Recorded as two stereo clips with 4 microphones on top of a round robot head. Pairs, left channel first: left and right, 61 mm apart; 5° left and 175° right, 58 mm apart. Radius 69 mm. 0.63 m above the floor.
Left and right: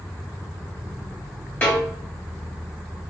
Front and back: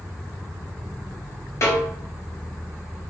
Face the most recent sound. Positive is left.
turn(degrees=30)